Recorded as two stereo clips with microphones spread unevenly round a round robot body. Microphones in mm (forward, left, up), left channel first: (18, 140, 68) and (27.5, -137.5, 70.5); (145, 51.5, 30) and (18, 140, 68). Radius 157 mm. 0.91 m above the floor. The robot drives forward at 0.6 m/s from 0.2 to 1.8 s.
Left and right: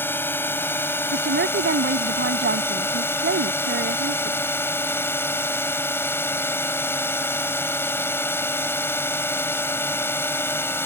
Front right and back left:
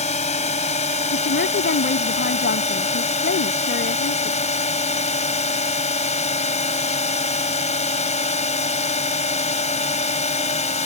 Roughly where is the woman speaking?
Ahead right.